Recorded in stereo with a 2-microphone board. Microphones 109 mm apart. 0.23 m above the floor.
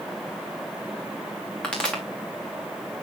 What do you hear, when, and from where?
1.6 s a pop: 10° left (ahead or behind), 4 m